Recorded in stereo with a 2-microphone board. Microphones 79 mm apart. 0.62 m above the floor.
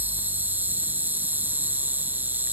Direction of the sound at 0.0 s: 20° right (ahead or behind).